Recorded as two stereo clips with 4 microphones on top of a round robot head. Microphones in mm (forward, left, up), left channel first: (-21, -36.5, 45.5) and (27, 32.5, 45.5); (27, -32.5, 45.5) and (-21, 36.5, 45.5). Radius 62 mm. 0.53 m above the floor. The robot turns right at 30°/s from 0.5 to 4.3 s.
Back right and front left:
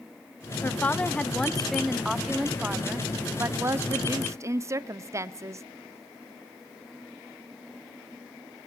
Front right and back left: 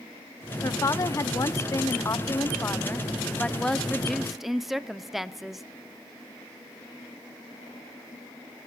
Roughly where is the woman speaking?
Right.